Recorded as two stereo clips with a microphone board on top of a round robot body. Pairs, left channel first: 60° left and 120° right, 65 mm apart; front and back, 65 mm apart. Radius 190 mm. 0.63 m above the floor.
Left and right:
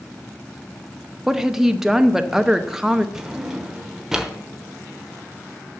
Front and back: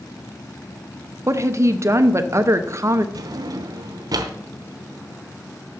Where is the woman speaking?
160° left, 1.0 m.